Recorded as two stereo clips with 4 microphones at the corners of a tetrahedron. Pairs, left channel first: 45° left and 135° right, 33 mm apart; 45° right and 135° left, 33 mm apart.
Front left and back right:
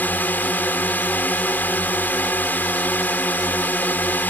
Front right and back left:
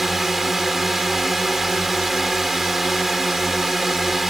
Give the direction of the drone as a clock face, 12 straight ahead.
10 o'clock.